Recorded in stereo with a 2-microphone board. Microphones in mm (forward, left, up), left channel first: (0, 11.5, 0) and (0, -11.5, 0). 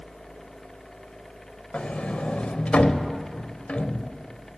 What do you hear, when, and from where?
1.7 s a sliding door: 75° left (ahead or behind), 0.6 m